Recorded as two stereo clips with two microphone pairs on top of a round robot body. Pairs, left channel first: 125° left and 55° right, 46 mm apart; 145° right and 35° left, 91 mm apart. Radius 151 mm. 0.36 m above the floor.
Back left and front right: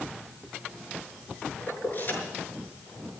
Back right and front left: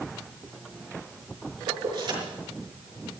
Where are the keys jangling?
80° left, 5.5 m.